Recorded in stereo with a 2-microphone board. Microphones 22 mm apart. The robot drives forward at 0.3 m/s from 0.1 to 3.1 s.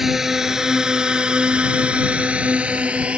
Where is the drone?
10° right (ahead or behind); by 3.2 s 60° right (ahead or behind).